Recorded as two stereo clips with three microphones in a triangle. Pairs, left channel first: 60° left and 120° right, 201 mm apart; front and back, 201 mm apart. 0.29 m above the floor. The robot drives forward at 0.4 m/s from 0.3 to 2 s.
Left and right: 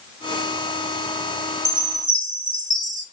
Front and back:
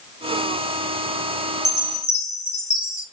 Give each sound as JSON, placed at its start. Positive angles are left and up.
{"t": 1.6, "sound": "a chime", "azimuth_deg": -125, "distance_m": 1.1}